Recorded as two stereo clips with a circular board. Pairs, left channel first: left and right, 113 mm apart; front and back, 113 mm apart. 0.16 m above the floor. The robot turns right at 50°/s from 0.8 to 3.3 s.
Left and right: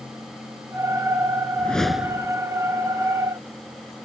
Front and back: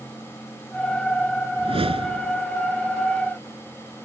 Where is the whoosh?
165° left; by 2.4 s 155° right.